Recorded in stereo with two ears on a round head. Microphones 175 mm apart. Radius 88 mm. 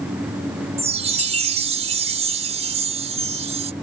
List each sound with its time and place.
0.8 s a chime: 30° right (ahead or behind)